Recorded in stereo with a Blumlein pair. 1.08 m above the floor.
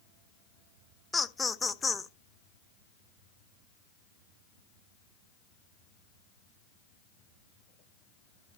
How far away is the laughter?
About 0.7 m.